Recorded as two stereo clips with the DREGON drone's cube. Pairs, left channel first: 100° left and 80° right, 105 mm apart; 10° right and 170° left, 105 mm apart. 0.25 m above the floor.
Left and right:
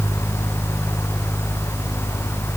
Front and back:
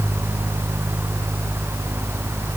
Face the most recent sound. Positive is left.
No sound to turn to.